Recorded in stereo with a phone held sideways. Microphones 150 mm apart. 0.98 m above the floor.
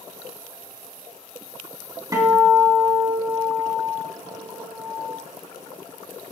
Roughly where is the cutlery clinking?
No cutlery clinking in this recording.